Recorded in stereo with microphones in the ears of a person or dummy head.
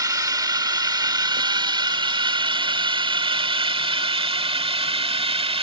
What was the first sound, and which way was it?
A drone, 20° right (ahead or behind).